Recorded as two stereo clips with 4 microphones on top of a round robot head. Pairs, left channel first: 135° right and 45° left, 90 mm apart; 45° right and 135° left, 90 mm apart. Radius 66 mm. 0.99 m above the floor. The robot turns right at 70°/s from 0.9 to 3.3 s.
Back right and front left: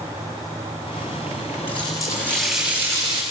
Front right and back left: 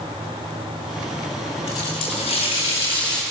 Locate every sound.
1.7 s a running tap: 100° right, 5 m; by 3.2 s 5° left, 5 m